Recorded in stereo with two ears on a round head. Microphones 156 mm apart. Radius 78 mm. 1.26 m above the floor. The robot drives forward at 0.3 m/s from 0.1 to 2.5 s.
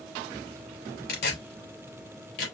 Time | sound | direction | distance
1.1 | tearing paper | 65° left (ahead or behind) | 3.5 m